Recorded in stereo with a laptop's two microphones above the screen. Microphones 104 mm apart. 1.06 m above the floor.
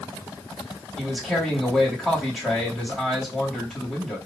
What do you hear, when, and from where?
1.0 s a man speaking: 5° right (ahead or behind), 2.5 m